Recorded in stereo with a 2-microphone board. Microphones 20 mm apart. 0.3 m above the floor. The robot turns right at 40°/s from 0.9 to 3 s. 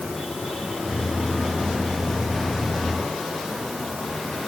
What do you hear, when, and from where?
Only background noise.